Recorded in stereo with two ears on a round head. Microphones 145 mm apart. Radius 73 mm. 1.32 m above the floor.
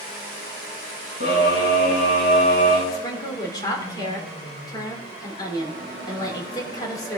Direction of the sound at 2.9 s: 30° left (ahead or behind).